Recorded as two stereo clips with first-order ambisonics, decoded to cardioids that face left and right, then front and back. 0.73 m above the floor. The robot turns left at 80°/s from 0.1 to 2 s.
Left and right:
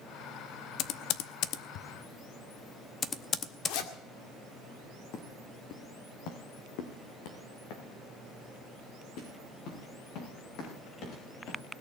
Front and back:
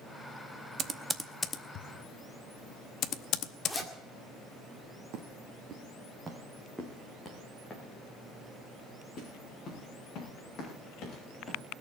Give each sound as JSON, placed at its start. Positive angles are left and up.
{"t": 0.8, "sound": "typing on a keyboard", "azimuth_deg": 130, "distance_m": 0.7}
{"t": 3.6, "sound": "a zipper", "azimuth_deg": 90, "distance_m": 1.8}
{"t": 5.1, "sound": "footsteps", "azimuth_deg": 140, "distance_m": 3.0}